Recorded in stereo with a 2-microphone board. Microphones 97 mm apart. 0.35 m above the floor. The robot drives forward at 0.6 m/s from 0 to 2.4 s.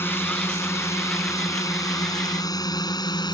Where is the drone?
25° left (ahead or behind); by 3.3 s 45° left (ahead or behind).